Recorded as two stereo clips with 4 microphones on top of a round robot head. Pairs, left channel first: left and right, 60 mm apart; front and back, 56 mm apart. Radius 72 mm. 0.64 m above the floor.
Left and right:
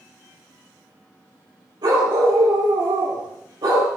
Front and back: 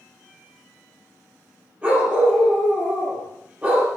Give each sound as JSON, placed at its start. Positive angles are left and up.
{"t": 1.8, "sound": "a dog barking", "azimuth_deg": -105, "distance_m": 9.0}